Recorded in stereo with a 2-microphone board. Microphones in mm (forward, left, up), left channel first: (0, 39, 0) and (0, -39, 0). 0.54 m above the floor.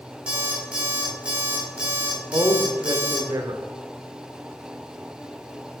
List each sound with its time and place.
0.3 s an alarm clock: 15° right (ahead or behind), 3.5 m
2.3 s a man speaking: 50° right (ahead or behind), 1.2 m